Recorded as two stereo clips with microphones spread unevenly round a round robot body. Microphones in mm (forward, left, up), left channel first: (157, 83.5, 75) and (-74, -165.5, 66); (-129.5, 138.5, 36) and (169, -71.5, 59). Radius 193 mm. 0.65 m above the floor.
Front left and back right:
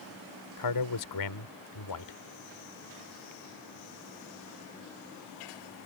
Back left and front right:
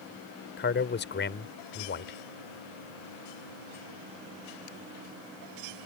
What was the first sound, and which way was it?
A man speaking, 85° left.